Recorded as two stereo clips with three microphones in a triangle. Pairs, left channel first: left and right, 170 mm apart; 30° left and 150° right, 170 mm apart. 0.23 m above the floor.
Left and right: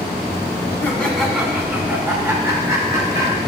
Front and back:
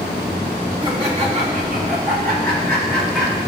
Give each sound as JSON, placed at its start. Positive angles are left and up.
{"t": 0.8, "sound": "laughter", "azimuth_deg": 165, "distance_m": 1.6}